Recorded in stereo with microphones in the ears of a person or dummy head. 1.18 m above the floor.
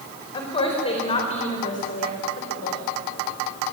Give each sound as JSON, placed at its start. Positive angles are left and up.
{"t": 0.3, "sound": "a woman speaking", "side_deg": 20, "distance_m": 4.5}